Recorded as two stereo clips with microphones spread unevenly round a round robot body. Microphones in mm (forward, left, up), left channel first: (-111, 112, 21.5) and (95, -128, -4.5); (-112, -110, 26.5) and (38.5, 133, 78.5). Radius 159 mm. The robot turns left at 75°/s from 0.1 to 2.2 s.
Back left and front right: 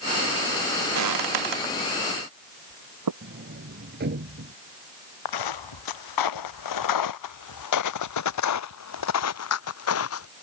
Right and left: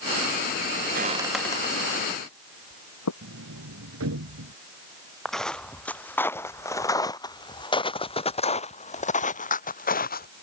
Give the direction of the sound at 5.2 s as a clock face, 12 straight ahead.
7 o'clock.